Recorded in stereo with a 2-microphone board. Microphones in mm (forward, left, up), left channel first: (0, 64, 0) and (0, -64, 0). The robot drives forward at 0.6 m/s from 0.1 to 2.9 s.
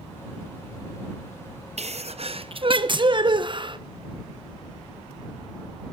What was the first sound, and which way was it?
A sneeze, 65° right (ahead or behind).